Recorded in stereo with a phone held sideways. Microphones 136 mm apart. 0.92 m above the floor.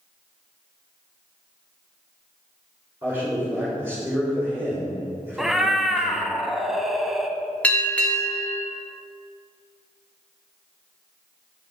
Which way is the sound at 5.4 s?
5° right (ahead or behind).